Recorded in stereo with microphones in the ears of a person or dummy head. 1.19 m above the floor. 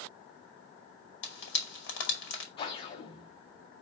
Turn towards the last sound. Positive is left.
turn(degrees=35)  # may be behind; listen again after turning